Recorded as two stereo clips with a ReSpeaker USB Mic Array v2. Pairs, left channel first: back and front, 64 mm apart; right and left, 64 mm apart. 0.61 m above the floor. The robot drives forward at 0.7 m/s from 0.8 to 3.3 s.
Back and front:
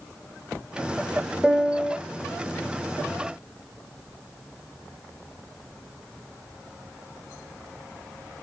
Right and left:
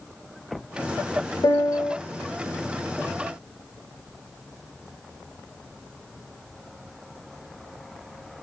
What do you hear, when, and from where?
1.4 s a piano: 80° right, 0.6 m; by 2.0 s 115° right, 0.7 m